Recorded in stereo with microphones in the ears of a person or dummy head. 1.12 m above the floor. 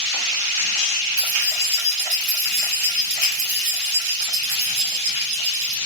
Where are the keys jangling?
25° right (ahead or behind), 2 m; by 5.8 s 60° right (ahead or behind), 1.2 m.